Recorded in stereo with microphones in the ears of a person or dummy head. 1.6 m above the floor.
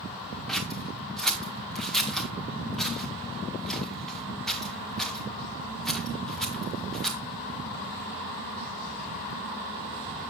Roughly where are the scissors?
Centre.